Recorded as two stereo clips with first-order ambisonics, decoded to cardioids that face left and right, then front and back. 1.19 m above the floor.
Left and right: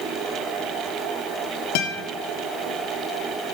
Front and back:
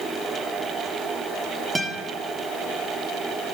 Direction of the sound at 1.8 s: 100° left.